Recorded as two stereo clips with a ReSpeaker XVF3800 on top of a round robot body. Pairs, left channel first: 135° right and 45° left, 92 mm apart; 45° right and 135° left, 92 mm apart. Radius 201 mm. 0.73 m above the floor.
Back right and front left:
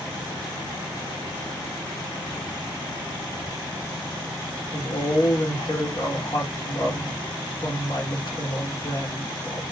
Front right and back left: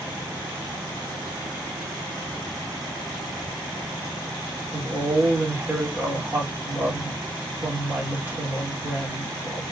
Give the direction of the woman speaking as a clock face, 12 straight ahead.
5 o'clock.